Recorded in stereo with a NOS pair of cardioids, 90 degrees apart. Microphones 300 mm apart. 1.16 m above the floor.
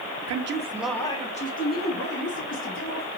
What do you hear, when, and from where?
0.3 s a man speaking: 60° right, 0.7 m; by 3.1 s 40° left, 3 m